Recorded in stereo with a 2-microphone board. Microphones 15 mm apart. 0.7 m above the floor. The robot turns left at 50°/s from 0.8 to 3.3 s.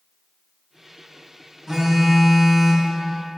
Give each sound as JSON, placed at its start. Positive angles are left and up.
{"t": 1.7, "sound": "a phone buzzing", "azimuth_deg": -120, "distance_m": 3.0}